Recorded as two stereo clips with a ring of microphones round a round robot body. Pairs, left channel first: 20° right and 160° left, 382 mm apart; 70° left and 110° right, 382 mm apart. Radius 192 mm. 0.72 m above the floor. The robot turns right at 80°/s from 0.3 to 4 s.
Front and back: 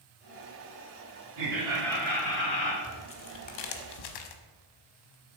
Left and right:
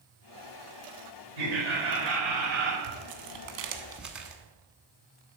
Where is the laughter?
150° right, 3 m; by 2.7 s 40° right, 3 m.